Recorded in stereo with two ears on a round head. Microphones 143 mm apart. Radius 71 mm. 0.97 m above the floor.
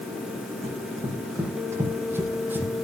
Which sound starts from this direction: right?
Running footsteps, at 0.6 s.